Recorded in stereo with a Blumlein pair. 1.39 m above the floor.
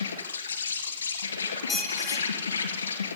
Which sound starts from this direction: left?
An insect, at 0.0 s.